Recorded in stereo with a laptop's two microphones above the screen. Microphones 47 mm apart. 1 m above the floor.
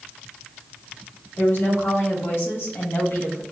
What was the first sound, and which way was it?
A woman speaking, 70° left (ahead or behind).